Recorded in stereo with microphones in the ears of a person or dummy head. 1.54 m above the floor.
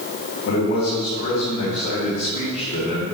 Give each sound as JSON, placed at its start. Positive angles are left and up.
{"t": 0.4, "sound": "a man speaking", "side_deg": 45, "distance_m": 2.5}